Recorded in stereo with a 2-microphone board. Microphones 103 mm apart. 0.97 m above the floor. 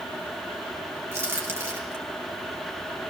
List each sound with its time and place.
1.1 s a crack: 25° right (ahead or behind), 7 m